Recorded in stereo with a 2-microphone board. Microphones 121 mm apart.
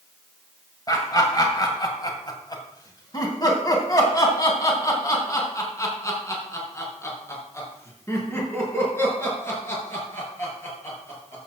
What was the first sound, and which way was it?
Laughter, 30° left (ahead or behind).